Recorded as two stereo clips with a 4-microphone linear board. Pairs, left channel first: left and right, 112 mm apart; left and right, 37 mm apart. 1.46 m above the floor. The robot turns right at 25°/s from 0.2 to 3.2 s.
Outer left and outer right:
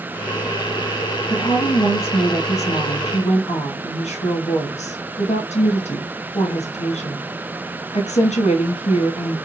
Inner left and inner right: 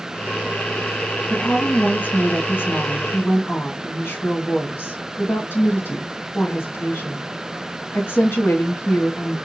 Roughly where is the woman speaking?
Ahead left.